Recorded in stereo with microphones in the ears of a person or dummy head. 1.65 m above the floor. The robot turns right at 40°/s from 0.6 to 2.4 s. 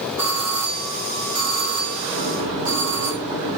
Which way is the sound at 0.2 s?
170° right.